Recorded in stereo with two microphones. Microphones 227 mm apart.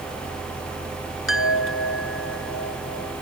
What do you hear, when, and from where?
1.3 s a chime: 70° left (ahead or behind)